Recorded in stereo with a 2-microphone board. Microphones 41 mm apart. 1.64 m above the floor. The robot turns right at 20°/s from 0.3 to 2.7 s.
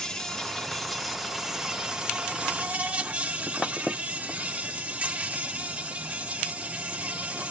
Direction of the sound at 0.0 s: 165° left.